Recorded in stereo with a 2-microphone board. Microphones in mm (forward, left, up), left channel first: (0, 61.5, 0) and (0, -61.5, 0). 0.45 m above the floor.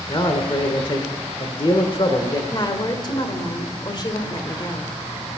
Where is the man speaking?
45° left (ahead or behind), 1.3 m.